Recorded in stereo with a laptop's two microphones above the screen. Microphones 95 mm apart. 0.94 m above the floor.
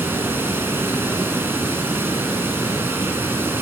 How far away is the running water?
About 1.0 m.